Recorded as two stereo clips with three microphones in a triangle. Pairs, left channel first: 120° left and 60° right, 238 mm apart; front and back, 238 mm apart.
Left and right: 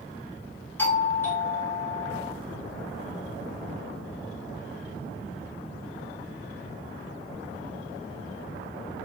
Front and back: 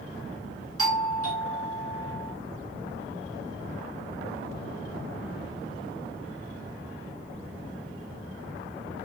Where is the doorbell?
160° right, 0.9 m.